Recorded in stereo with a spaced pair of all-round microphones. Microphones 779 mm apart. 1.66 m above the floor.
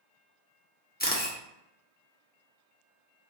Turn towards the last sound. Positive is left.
turn(degrees=15)  # may be behind; listen again after turning